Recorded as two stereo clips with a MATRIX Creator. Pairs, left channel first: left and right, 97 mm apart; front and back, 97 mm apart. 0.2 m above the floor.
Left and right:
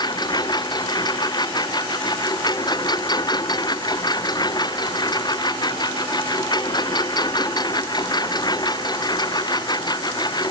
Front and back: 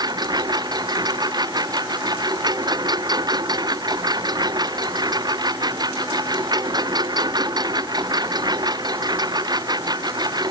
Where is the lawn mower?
135° left.